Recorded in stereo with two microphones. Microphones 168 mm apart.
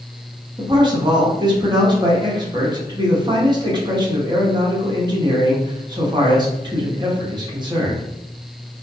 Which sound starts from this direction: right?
A man speaking, at 0.6 s.